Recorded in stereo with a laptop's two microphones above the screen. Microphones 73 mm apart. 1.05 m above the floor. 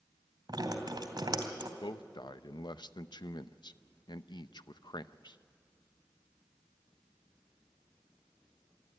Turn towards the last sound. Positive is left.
turn(degrees=80)